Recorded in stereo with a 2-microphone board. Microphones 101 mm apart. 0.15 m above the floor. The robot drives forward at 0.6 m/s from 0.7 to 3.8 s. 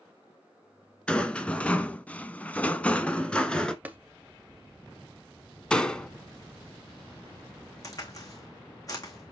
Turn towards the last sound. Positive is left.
turn(degrees=35)  # may be behind; listen again after turning